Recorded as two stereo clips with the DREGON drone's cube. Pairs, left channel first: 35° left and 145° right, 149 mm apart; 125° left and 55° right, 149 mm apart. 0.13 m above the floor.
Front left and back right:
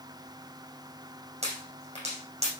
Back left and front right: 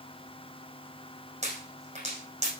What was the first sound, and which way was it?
A pop, 100° right.